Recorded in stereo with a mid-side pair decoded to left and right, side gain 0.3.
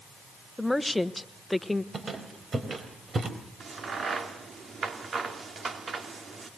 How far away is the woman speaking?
About 1.2 m.